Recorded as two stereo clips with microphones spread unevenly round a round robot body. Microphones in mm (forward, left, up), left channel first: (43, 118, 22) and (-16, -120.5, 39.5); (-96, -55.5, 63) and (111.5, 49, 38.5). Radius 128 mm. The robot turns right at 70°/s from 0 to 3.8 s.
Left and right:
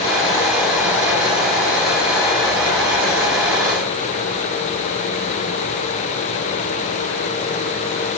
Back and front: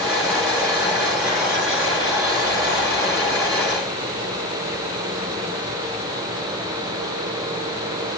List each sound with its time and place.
Only background noise.